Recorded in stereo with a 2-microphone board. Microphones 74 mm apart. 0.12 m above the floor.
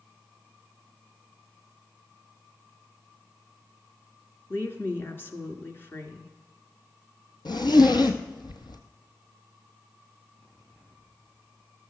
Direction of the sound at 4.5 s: 30° left (ahead or behind).